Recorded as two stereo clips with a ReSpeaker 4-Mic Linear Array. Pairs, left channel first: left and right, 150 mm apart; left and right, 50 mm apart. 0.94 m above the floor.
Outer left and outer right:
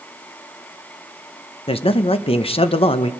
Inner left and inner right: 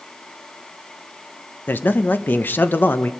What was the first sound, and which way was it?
A man speaking, 40° left (ahead or behind).